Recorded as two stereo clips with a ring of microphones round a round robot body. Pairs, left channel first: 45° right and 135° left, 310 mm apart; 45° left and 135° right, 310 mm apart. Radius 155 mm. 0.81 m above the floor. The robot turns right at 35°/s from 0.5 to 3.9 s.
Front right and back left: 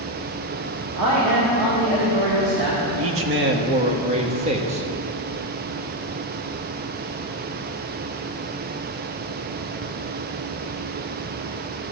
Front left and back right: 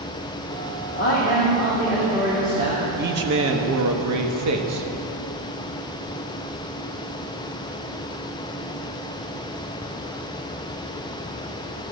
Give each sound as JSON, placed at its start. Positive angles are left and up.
{"t": 0.9, "sound": "a man speaking", "azimuth_deg": 95, "distance_m": 1.8}
{"t": 3.0, "sound": "a man speaking", "azimuth_deg": 170, "distance_m": 1.1}